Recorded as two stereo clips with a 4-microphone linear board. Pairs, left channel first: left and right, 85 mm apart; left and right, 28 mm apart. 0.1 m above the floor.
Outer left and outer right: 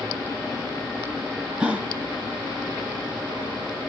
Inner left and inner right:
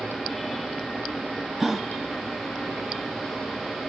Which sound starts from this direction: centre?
A gasp, at 1.6 s.